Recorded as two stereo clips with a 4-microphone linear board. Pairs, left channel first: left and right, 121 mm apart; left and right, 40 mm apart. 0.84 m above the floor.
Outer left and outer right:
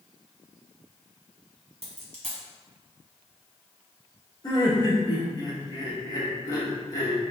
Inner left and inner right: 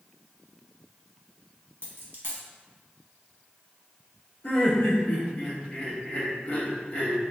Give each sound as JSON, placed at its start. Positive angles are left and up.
{"t": 1.8, "sound": "a dropped coin", "side_deg": -60, "distance_m": 1.0}
{"t": 4.4, "sound": "laughter", "side_deg": 35, "distance_m": 1.0}